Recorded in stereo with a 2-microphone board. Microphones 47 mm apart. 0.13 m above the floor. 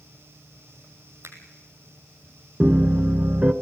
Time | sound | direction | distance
1.2 | a finger snap | 60° right (ahead or behind) | 3 m
2.6 | a piano | 35° right (ahead or behind) | 1.1 m